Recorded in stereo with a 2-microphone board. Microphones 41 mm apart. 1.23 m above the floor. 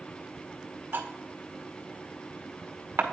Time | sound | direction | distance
0.9 | cutlery clinking | 55° right (ahead or behind) | 1.2 m